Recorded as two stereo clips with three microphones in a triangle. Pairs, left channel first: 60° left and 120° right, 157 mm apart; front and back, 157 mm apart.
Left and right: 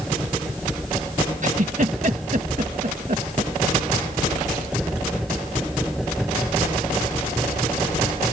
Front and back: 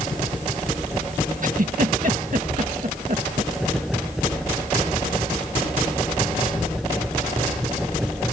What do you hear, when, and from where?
1.4 s a giggle: 155° right